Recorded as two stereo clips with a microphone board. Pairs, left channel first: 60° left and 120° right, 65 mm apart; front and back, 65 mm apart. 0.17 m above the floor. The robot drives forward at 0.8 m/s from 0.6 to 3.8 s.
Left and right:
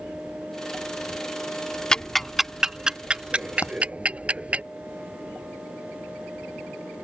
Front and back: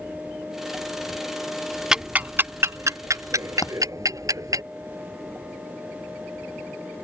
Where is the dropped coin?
15° left.